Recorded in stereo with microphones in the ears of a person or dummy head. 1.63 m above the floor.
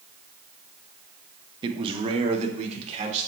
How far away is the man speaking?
About 0.8 m.